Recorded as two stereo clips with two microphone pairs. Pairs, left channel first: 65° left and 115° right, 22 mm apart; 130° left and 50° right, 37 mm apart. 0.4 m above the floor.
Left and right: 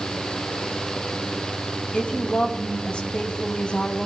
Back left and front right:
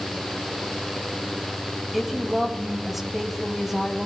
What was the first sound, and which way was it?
A woman speaking, 35° left.